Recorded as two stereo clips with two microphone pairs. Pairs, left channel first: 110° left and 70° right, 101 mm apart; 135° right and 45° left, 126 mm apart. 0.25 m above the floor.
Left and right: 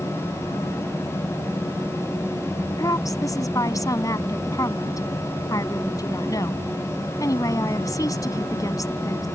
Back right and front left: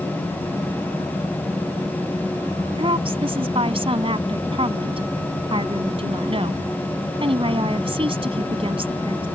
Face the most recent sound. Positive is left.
turn(degrees=70)